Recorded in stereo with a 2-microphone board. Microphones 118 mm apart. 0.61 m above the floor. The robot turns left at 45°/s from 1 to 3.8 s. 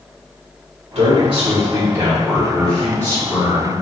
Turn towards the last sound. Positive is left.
turn(degrees=120)